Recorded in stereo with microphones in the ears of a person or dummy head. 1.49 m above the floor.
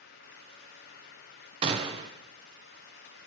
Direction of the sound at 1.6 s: 35° right (ahead or behind).